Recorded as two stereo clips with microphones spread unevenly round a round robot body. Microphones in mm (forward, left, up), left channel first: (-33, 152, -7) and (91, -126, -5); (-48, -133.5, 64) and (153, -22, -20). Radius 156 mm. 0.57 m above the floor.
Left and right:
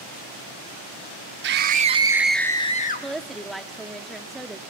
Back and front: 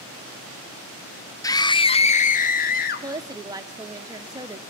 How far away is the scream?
About 1.0 m.